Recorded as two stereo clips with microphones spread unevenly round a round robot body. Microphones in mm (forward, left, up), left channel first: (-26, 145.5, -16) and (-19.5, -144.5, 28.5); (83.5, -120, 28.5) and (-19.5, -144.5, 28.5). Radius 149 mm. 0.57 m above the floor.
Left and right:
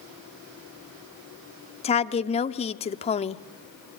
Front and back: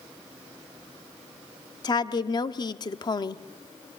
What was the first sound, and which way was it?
A woman speaking, 40° left.